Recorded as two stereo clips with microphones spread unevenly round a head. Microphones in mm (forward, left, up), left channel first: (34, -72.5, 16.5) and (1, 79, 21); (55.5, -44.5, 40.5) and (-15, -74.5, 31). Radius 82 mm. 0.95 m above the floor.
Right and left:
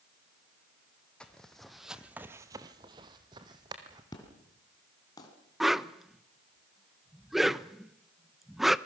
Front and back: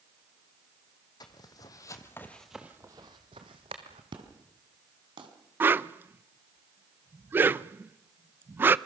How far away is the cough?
I don't hear a cough.